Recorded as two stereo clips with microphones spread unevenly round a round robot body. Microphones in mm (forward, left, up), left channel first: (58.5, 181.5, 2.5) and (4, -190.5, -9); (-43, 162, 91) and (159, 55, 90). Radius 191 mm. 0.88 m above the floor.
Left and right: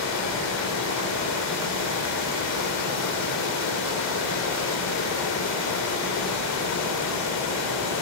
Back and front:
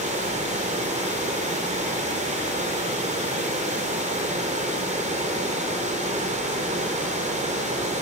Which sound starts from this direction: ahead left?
Running water, at 0.0 s.